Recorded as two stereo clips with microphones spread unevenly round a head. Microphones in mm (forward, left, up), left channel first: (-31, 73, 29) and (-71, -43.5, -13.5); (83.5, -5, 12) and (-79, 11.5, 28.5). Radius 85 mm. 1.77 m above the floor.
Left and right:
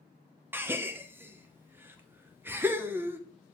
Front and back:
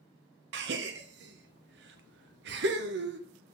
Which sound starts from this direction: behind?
A gasp, at 0.5 s.